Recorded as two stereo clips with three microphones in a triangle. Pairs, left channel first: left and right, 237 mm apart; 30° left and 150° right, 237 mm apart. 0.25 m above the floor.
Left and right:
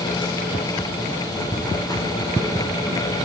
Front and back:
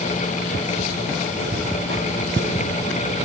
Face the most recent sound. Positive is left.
turn(degrees=165)